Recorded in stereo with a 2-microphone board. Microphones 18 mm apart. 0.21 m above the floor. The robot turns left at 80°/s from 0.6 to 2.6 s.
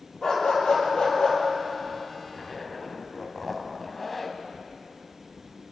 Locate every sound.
0.2 s a dog barking: 125° left, 3 m; by 1.4 s 60° left, 3 m
2.3 s a zipper: 5° right (ahead or behind), 1.0 m; by 4.4 s 10° left (ahead or behind), 1.0 m